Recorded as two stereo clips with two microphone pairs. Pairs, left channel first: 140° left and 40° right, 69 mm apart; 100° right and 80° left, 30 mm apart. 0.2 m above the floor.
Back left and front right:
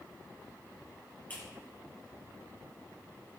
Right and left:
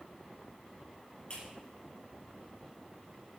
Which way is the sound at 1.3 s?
155° right.